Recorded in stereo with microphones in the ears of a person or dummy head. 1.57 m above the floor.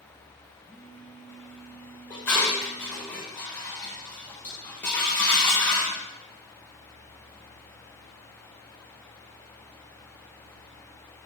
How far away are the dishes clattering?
About 0.9 m.